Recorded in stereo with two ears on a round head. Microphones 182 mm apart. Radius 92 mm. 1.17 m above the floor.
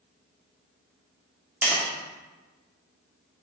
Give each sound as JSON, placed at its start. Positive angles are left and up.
{"t": 1.6, "sound": "tapping", "side_deg": -5, "distance_m": 2.0}